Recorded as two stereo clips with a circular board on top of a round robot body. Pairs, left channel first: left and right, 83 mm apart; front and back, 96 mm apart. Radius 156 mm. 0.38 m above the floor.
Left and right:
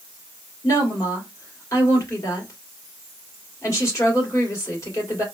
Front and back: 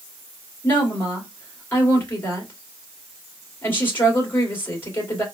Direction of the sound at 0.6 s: 60° left.